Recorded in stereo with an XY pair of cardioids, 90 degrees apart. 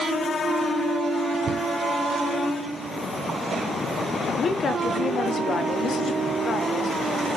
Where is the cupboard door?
65° right, 0.7 m.